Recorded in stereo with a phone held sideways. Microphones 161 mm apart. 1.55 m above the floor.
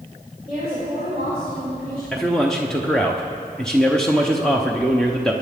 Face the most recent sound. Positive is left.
turn(degrees=5)  # may be behind; listen again after turning